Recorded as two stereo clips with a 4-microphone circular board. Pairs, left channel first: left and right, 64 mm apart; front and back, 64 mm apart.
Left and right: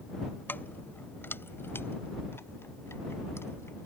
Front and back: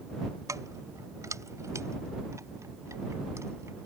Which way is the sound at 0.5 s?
150° left.